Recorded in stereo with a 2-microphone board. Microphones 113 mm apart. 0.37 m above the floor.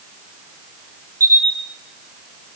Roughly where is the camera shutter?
Right.